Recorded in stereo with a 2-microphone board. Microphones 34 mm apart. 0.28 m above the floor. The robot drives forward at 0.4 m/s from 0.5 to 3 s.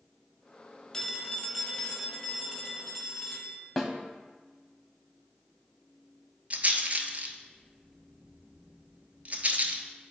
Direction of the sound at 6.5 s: 45° right (ahead or behind).